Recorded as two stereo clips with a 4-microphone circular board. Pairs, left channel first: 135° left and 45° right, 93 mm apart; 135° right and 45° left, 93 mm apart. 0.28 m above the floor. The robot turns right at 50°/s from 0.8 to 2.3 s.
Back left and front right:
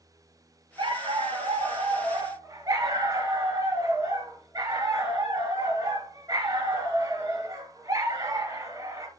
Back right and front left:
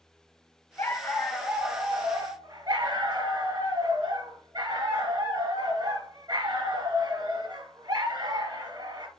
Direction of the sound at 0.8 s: 75° right.